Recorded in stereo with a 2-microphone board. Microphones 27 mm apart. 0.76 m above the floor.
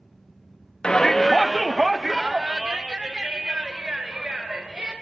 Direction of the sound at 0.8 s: 35° left (ahead or behind).